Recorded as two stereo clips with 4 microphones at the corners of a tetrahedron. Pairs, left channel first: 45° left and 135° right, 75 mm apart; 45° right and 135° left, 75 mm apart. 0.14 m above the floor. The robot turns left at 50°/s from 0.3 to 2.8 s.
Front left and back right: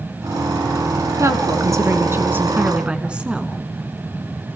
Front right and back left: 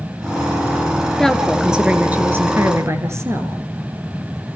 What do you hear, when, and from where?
1.2 s a woman speaking: 125° right, 2 m; by 3.6 s 155° left, 2 m